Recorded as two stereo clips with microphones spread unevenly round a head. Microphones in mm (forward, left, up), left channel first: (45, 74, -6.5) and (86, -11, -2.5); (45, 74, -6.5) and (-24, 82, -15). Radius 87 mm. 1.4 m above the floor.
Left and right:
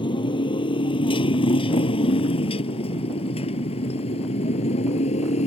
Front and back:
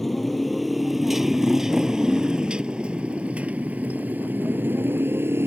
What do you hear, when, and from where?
0.0 s a motorcycle: 80° left; by 5.5 s 120° left